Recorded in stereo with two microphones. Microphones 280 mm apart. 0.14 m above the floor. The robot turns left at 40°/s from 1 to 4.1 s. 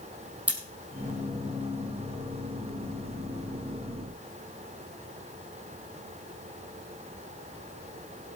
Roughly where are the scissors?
Centre.